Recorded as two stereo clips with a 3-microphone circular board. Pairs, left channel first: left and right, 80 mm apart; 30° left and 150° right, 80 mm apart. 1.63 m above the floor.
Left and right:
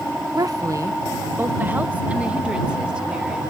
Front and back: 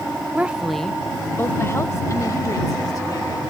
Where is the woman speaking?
85° right; by 3.4 s 10° right.